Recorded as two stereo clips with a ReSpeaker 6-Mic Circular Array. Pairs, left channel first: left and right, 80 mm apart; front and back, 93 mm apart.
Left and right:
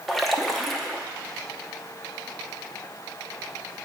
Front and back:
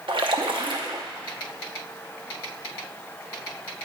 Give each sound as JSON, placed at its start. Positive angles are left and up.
{"t": 0.1, "sound": "a splash", "azimuth_deg": 175, "distance_m": 0.7}